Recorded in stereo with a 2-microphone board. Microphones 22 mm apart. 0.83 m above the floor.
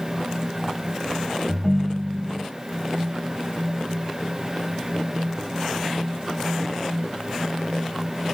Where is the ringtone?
5° left (ahead or behind), 0.9 m.